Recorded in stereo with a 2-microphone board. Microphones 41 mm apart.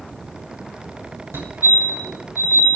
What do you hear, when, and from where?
1.3 s a fire alarm: 65° right (ahead or behind), 9.5 m